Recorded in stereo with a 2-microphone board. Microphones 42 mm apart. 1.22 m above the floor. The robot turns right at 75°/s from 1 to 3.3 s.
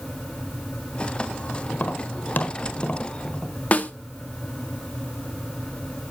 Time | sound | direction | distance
1.7 | tapping | 40° left (ahead or behind) | 1.3 m
3.7 | a snare drum | 35° left (ahead or behind) | 0.9 m